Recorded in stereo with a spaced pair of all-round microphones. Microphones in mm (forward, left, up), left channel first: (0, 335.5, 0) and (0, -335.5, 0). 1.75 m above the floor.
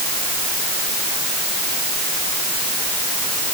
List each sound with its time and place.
Only background noise.